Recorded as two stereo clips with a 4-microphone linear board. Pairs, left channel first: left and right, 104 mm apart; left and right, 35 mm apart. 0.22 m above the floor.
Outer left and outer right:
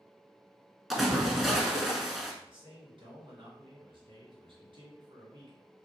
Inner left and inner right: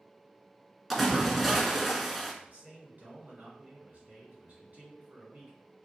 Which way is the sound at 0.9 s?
Centre (ahead or behind).